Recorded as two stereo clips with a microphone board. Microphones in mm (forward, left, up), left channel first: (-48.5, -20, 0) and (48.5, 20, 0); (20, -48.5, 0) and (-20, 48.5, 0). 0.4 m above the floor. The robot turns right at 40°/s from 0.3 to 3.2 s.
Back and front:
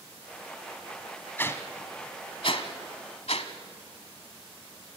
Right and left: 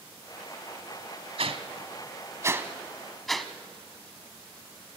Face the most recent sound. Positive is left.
turn(degrees=-155)